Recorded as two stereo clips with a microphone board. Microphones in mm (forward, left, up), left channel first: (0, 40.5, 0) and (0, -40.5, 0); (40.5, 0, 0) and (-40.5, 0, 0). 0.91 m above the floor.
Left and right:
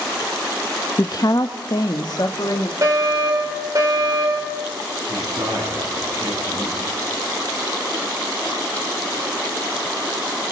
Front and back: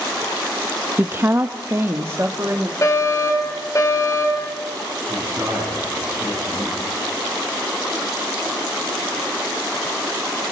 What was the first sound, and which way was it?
A woman speaking, 120° left.